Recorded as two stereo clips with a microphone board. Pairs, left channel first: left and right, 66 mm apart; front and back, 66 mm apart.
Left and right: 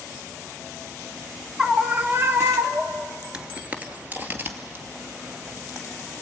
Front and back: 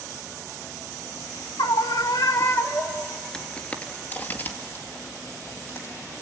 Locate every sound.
1.6 s a scream: 5° right, 1.2 m; by 3.1 s 60° right, 1.8 m
3.3 s footsteps: 55° right, 1.5 m; by 6.2 s 40° right, 3.5 m